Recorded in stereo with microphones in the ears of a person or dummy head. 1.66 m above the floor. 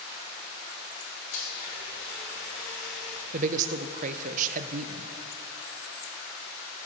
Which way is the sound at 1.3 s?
70° left (ahead or behind).